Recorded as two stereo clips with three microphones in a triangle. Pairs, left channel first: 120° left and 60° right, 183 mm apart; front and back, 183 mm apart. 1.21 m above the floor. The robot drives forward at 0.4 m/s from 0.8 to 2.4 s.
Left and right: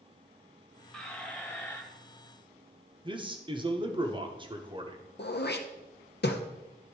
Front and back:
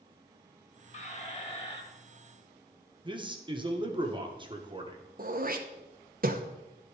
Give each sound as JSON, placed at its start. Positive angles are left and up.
{"t": 0.9, "sound": "a squeak", "azimuth_deg": 35, "distance_m": 1.5}
{"t": 3.0, "sound": "a man speaking", "azimuth_deg": -120, "distance_m": 1.1}
{"t": 5.2, "sound": "throat clearing", "azimuth_deg": 145, "distance_m": 0.9}